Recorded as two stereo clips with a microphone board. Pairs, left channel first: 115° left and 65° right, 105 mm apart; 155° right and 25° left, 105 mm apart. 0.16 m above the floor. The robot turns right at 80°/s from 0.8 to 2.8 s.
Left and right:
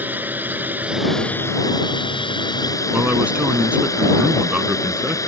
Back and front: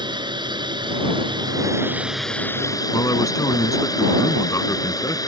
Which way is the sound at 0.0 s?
Straight ahead.